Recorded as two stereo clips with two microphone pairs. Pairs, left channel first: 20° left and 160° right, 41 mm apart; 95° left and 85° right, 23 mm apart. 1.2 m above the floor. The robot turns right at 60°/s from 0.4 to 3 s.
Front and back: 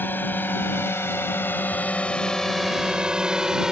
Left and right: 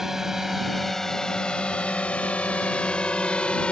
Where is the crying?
I don't hear crying.